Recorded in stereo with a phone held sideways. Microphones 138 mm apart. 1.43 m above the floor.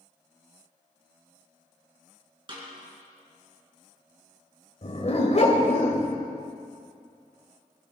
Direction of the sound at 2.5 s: 35° right (ahead or behind).